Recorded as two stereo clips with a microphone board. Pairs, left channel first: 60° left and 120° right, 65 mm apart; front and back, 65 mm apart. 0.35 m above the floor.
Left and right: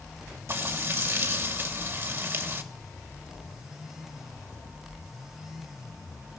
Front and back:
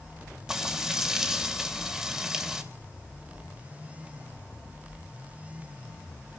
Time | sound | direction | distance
0.5 | frying | 105° right | 1.8 m